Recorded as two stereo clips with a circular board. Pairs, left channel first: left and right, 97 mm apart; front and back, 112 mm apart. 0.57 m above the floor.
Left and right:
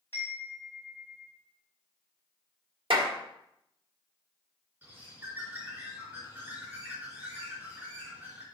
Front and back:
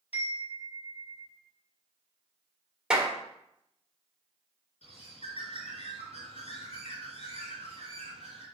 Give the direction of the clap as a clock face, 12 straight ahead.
3 o'clock.